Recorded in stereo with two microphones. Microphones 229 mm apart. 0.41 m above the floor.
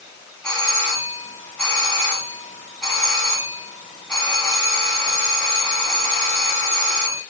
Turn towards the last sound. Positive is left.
turn(degrees=5)  # may be behind; listen again after turning